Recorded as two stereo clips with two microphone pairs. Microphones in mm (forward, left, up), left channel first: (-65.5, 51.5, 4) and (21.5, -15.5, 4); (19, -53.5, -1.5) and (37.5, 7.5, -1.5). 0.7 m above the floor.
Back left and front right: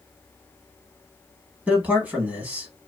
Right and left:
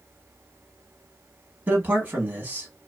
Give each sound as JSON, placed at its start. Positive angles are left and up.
{"t": 1.7, "sound": "a man speaking", "azimuth_deg": 30, "distance_m": 1.1}